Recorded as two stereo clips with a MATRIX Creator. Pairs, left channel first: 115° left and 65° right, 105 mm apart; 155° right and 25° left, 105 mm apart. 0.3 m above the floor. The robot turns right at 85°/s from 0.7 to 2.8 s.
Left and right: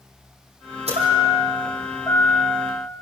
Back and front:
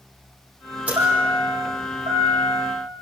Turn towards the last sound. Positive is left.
turn(degrees=110)